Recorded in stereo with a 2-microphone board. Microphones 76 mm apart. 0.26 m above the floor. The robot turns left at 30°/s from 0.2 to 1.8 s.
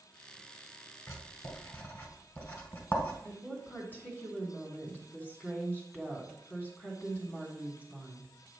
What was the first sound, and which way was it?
Writing, 45° left (ahead or behind).